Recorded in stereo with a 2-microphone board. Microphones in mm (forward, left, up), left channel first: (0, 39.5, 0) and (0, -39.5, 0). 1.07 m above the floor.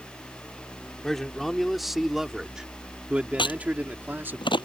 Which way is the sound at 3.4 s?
90° left.